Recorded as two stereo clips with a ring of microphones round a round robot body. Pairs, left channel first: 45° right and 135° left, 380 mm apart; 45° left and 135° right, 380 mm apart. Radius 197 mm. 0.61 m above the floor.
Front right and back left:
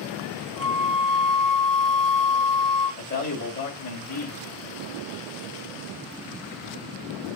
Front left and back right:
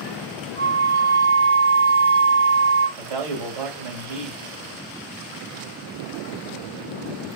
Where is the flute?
135° right, 4 m.